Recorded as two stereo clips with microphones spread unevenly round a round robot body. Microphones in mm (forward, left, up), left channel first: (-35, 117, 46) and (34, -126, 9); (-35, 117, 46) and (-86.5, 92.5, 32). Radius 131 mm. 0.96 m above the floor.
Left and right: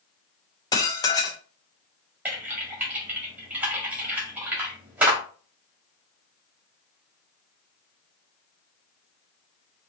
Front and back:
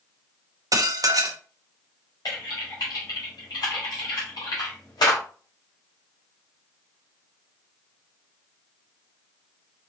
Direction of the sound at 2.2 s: 10° left.